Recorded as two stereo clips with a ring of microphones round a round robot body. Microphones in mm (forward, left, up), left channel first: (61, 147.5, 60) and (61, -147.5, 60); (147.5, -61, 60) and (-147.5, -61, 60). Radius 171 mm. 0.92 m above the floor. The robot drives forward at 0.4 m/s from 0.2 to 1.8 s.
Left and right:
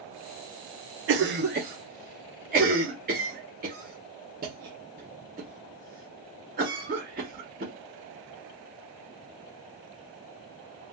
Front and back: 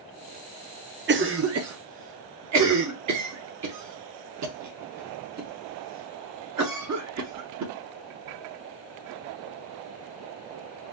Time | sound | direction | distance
1.1 | a cough | 130° right | 0.5 m